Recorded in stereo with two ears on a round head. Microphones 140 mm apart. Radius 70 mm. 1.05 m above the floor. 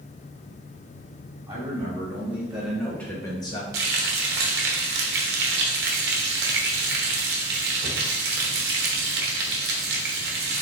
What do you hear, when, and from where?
1.5 s a man speaking: 20° right (ahead or behind), 1.9 m; by 3.6 s 35° left (ahead or behind), 0.9 m
3.7 s frying: 70° right (ahead or behind), 0.8 m